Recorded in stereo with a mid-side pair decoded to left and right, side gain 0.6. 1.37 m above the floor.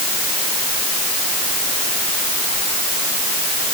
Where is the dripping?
I don't hear dripping.